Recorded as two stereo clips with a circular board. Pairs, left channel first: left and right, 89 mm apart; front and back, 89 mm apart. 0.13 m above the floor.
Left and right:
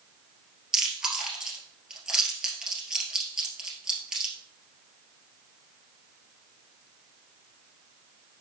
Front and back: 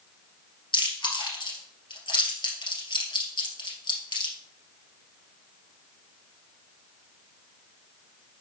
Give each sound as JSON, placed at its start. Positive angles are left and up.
{"t": 0.7, "sound": "chewing", "azimuth_deg": -10, "distance_m": 2.0}